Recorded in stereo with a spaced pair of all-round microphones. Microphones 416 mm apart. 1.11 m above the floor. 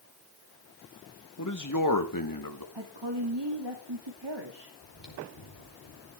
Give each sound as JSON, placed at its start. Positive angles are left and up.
{"t": 1.4, "sound": "a man speaking", "side_deg": 40, "distance_m": 1.5}
{"t": 2.8, "sound": "a woman speaking", "side_deg": -80, "distance_m": 2.5}
{"t": 4.8, "sound": "chewing", "side_deg": 80, "distance_m": 4.5}